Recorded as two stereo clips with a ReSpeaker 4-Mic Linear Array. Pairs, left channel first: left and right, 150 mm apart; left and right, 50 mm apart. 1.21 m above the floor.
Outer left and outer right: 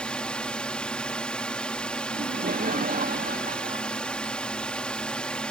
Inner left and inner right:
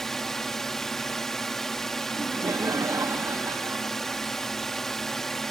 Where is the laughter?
80° right.